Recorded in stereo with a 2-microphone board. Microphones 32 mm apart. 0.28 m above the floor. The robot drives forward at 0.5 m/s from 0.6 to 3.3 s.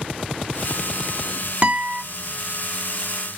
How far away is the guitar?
About 1.0 m.